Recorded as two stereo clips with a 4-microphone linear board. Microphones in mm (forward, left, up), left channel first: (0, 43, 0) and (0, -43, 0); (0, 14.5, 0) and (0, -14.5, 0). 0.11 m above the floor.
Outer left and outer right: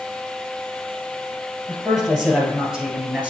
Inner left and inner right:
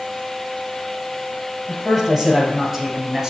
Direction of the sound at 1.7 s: 5° right (ahead or behind).